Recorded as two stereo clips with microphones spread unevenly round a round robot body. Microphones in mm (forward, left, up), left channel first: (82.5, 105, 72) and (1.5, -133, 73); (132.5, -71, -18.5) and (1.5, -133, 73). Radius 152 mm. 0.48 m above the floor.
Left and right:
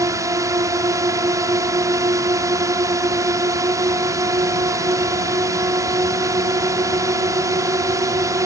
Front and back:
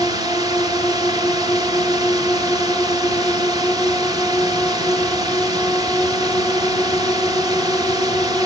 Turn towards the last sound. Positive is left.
turn(degrees=-45)